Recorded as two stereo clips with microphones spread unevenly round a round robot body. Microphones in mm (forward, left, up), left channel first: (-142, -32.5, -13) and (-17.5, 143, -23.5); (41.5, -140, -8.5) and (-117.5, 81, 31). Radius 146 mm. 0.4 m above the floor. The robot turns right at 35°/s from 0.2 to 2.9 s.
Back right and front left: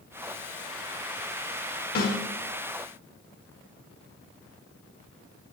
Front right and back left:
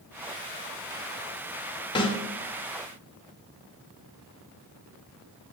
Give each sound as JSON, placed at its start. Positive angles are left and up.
{"t": 1.9, "sound": "a snare drum", "azimuth_deg": -105, "distance_m": 1.5}